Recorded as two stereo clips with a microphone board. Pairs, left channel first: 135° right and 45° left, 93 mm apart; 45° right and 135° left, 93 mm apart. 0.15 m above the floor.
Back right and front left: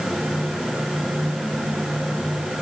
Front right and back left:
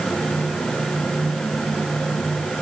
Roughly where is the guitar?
I don't hear a guitar.